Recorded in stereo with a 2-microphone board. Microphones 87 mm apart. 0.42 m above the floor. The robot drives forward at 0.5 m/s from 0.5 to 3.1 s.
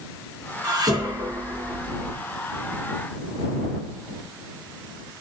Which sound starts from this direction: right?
Dishes clattering, at 0.6 s.